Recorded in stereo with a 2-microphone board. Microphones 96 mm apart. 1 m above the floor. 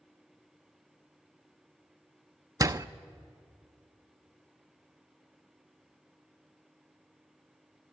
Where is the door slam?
40° right (ahead or behind), 0.5 m.